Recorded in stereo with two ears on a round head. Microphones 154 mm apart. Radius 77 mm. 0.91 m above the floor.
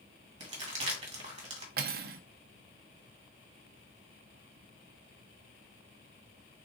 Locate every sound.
0.4 s crumpling: 35° right (ahead or behind), 1.8 m
1.8 s cutlery clinking: 55° right (ahead or behind), 0.5 m